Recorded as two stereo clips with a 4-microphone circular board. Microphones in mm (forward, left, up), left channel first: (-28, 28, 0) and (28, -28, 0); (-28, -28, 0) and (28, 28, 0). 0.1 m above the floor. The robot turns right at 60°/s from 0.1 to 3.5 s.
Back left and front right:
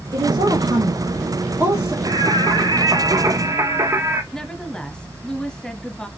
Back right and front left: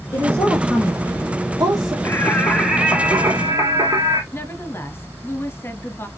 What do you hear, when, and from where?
0.1 s a woman speaking: 75° right, 4 m; by 1.9 s 35° left, 4 m
2.0 s singing: 80° right, 1.7 m; by 4.2 s 5° left, 1.7 m
4.3 s a woman speaking: 155° right, 1.6 m